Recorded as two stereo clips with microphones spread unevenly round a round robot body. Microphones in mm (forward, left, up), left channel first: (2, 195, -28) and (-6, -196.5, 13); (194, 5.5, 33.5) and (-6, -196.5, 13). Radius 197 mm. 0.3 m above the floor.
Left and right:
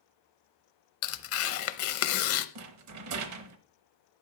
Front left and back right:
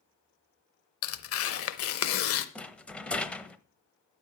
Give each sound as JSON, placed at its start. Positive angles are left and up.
{"t": 1.0, "sound": "tearing paper", "azimuth_deg": 60, "distance_m": 0.7}
{"t": 2.5, "sound": "a rattle", "azimuth_deg": -45, "distance_m": 0.9}